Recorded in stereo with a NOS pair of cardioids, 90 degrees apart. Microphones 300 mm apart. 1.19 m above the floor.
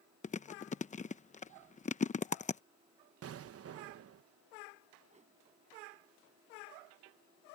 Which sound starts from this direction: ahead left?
Chewing, at 0.2 s.